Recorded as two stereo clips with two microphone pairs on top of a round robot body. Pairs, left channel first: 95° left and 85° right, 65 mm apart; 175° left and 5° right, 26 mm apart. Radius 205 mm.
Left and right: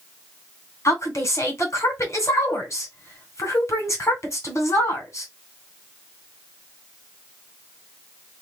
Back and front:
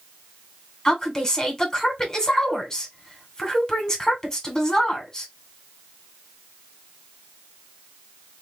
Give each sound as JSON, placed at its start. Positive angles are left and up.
{"t": 0.8, "sound": "a woman speaking", "azimuth_deg": 115, "distance_m": 2.5}